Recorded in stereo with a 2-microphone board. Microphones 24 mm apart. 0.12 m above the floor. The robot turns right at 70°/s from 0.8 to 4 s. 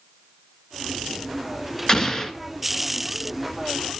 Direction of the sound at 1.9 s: 25° left (ahead or behind).